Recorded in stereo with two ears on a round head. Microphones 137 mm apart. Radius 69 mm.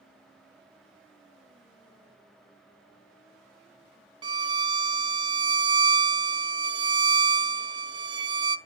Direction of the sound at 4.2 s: 30° right (ahead or behind).